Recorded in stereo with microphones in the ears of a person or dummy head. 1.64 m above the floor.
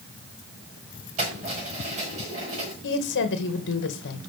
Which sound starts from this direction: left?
A woman speaking, at 2.8 s.